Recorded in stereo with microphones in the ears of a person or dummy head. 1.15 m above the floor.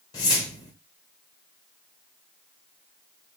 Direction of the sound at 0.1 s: 20° left (ahead or behind).